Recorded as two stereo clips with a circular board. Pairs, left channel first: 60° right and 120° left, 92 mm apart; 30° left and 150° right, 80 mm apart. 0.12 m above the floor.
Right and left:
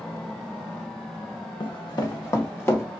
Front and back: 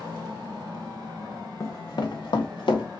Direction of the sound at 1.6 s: 20° right.